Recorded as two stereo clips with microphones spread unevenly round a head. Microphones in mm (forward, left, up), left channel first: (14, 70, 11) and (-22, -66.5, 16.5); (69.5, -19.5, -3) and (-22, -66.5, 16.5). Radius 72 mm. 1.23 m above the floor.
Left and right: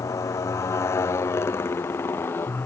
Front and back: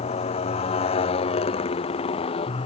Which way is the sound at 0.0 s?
5° left.